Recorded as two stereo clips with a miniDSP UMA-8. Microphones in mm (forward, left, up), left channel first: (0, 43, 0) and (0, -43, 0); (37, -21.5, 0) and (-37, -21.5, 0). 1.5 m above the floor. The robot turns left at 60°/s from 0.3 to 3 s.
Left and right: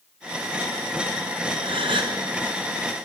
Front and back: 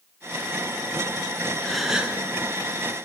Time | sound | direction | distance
1.6 | a gasp | 80° right | 0.7 m